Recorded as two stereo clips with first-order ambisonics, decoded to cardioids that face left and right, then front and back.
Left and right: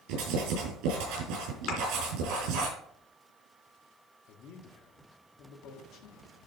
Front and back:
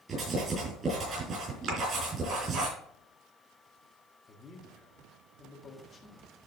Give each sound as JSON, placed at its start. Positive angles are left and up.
{"t": 0.1, "sound": "writing", "azimuth_deg": -110, "distance_m": 5.5}
{"t": 1.7, "sound": "a thud", "azimuth_deg": 130, "distance_m": 2.5}
{"t": 4.3, "sound": "a man speaking", "azimuth_deg": 70, "distance_m": 1.6}